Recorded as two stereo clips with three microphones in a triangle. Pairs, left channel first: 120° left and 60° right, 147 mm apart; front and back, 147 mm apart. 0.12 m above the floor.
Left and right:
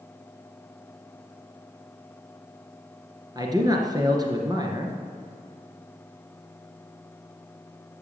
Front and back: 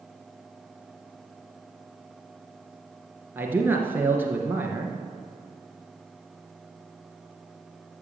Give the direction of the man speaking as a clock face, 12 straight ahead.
4 o'clock.